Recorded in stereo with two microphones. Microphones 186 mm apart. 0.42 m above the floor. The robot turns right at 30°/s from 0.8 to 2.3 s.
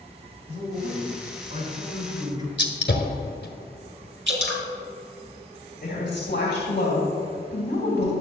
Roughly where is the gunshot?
Left.